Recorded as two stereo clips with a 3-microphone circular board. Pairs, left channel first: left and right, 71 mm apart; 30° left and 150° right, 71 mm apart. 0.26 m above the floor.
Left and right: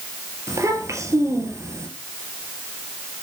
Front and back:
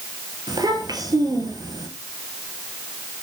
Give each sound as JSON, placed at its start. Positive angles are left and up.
{"t": 0.5, "sound": "a child speaking", "azimuth_deg": -135, "distance_m": 3.5}